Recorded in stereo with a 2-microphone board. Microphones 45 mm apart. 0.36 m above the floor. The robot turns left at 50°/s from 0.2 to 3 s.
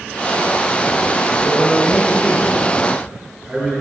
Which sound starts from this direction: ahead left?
A man speaking, at 1.4 s.